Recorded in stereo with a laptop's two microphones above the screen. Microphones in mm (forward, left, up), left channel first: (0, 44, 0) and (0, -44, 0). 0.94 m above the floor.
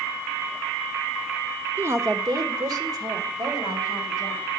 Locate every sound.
1.8 s a woman speaking: 20° right (ahead or behind), 0.5 m; by 4.5 s 45° right (ahead or behind), 3 m